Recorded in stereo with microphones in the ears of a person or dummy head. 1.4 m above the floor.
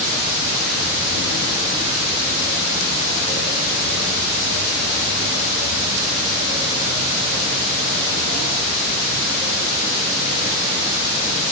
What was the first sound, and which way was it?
Only background noise.